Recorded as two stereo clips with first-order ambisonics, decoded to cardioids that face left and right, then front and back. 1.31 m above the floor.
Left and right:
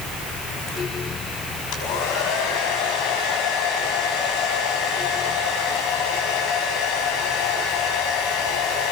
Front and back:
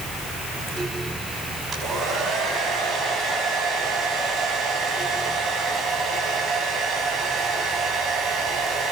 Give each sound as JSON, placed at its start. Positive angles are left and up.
{"t": 1.7, "sound": "a hair dryer", "azimuth_deg": 115, "distance_m": 5.5}